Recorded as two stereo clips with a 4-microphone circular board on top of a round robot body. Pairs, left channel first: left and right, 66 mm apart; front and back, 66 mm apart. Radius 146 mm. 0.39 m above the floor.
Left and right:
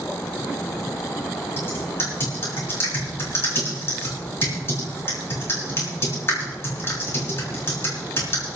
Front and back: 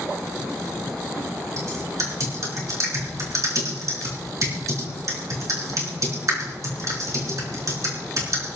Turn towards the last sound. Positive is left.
turn(degrees=140)